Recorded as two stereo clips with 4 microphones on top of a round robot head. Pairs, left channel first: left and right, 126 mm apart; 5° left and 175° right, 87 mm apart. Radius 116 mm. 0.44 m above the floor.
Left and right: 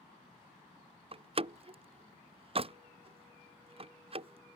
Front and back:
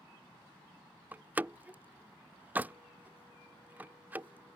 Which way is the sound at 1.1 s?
110° right.